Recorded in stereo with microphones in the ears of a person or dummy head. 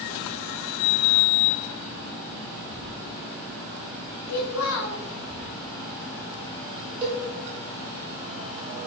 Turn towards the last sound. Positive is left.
turn(degrees=-30)  # may be behind; listen again after turning